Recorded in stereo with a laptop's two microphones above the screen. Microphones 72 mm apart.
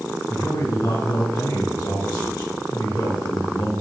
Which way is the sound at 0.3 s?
80° left.